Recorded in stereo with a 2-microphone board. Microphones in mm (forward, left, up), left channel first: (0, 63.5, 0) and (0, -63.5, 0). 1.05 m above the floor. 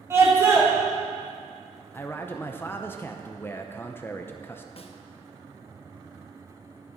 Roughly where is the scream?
Right.